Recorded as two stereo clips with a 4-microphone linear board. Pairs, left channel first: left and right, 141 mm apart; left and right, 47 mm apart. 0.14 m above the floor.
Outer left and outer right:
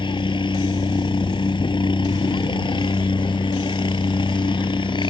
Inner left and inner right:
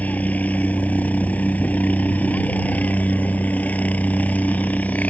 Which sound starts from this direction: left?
A helicopter, at 0.0 s.